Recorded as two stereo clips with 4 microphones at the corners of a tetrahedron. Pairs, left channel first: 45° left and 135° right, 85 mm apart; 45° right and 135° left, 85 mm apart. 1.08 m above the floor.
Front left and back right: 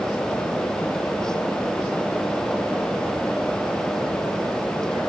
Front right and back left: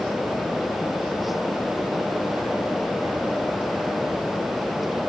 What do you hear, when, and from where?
Only background noise.